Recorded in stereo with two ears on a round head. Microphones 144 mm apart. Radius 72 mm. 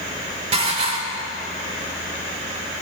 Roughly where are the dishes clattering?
Right.